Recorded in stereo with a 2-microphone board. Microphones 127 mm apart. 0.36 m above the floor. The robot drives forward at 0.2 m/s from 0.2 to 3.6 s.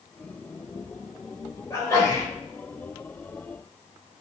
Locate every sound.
1.7 s a sneeze: 25° left (ahead or behind), 1.2 m